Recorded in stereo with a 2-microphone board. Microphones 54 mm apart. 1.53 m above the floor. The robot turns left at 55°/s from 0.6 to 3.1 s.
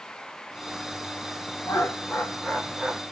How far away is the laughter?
About 1.3 m.